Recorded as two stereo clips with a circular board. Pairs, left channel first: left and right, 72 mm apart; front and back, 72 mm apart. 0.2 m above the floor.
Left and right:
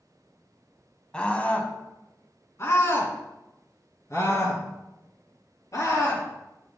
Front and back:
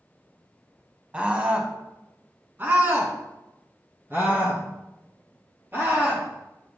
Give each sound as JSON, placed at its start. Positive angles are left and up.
{"t": 1.1, "sound": "a scream", "azimuth_deg": 145, "distance_m": 1.3}